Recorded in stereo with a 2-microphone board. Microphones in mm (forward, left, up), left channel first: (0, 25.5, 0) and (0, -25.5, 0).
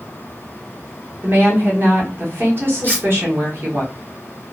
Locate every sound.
1.2 s a woman speaking: 50° right (ahead or behind), 1.0 m
2.8 s cutlery clinking: 45° right (ahead or behind), 1.2 m